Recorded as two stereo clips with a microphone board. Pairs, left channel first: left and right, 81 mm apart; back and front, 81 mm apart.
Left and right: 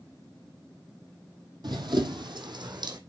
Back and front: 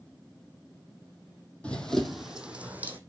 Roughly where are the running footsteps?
Right.